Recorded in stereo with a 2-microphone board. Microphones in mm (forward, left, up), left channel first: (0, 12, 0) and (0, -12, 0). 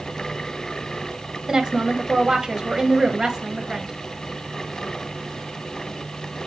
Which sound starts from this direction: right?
A woman speaking, at 1.5 s.